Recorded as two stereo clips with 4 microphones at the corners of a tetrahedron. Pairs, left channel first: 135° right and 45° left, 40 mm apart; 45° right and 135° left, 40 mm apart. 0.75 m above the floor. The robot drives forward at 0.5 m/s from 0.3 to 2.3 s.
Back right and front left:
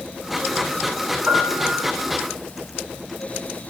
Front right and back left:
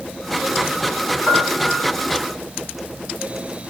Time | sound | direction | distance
1.3 | a piano | 50° left | 7 m